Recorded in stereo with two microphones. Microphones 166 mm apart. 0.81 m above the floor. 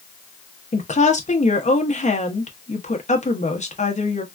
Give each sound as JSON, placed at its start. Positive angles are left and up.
{"t": 0.7, "sound": "a woman speaking", "side_deg": 45, "distance_m": 0.8}